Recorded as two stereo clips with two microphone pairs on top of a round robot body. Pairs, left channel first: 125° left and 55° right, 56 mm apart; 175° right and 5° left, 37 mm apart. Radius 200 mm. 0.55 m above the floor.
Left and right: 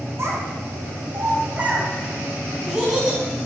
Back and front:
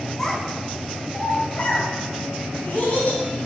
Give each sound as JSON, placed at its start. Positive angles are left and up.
{"t": 0.2, "sound": "a child speaking", "azimuth_deg": -90, "distance_m": 2.0}